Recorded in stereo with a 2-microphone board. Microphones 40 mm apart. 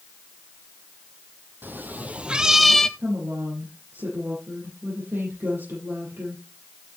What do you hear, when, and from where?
1.6 s a cat meowing: 55° right (ahead or behind), 1.5 m; by 2.9 s 15° left (ahead or behind), 1.1 m
3.0 s a woman speaking: 70° right (ahead or behind), 7.5 m